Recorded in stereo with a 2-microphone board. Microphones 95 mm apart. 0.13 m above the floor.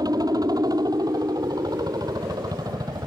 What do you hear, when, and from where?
0.0 s a helicopter: 45° right (ahead or behind)